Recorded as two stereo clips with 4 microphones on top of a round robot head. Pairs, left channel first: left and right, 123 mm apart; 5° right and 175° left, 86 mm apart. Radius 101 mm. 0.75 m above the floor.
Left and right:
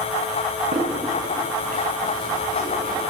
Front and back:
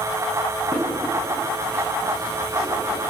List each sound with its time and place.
0.7 s footsteps: 110° right, 3 m